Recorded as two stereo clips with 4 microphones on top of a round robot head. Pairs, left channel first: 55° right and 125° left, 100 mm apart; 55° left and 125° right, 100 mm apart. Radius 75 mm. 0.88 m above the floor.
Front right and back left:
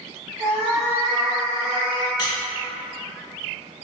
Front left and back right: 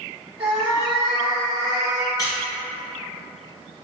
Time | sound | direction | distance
0.4 | a cat meowing | 170° right | 1.1 m
2.2 | a squeak | straight ahead | 0.6 m